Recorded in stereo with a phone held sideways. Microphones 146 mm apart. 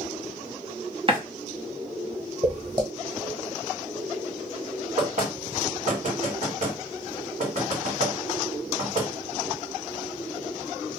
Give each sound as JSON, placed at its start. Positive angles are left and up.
{"t": 1.1, "sound": "a running tap", "side_deg": -40, "distance_m": 0.7}
{"t": 2.4, "sound": "footsteps", "side_deg": -30, "distance_m": 1.5}
{"t": 5.0, "sound": "knocking", "side_deg": -60, "distance_m": 1.4}